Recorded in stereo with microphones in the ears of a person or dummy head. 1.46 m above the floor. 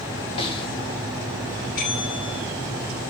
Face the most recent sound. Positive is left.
turn(degrees=50)  # may be behind; listen again after turning